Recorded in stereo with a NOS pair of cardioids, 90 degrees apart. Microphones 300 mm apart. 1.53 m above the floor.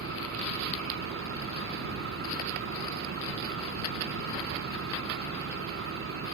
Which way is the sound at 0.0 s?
50° right.